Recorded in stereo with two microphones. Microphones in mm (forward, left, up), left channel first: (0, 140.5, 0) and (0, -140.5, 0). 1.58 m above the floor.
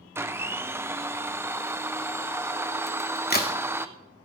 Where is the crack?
35° left (ahead or behind), 2.5 m.